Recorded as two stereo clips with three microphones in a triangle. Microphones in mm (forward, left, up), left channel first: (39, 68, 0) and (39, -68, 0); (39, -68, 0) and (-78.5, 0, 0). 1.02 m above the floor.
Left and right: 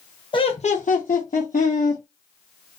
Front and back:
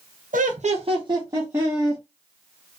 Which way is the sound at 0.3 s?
140° left.